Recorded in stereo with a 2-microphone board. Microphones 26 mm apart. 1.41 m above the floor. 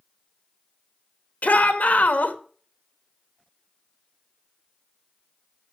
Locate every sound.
1.4 s a shout: 70° left (ahead or behind), 2 m